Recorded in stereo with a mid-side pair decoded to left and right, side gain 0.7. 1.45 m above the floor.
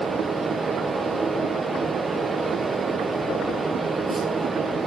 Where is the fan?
20° right, 0.9 m.